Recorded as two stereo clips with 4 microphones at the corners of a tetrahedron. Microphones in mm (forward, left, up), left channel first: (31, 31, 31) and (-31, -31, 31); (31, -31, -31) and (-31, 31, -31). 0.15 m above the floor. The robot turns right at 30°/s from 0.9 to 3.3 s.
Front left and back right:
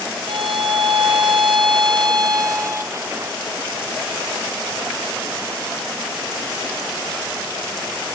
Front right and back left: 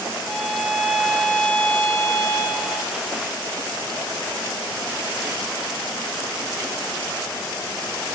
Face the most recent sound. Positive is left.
turn(degrees=-60)